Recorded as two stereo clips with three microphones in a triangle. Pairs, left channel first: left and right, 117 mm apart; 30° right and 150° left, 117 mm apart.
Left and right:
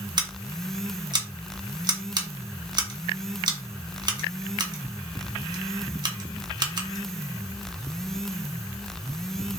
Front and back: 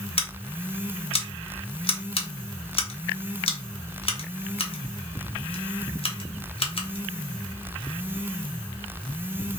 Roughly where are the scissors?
Ahead right.